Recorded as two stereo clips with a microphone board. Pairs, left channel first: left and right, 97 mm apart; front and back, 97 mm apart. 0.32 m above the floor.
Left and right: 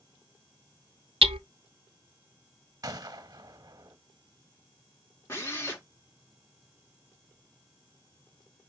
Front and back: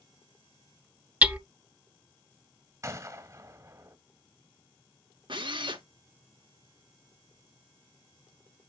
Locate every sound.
1.2 s hammering: 105° right, 0.8 m
2.8 s a gunshot: 130° right, 1.2 m
5.3 s a drill: 150° left, 5 m